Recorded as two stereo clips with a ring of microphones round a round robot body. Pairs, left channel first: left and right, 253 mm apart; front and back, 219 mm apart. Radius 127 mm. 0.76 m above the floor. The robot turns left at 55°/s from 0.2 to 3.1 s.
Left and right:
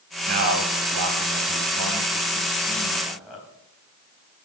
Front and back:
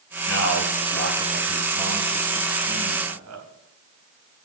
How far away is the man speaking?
About 4 m.